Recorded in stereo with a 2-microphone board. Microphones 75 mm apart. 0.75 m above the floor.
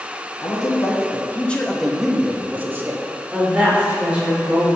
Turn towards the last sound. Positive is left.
turn(degrees=-15)  # may be behind; listen again after turning